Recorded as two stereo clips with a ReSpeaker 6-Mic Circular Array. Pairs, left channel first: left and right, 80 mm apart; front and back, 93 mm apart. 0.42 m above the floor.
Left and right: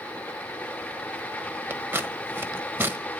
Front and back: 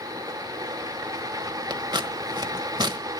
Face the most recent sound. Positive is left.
turn(degrees=-150)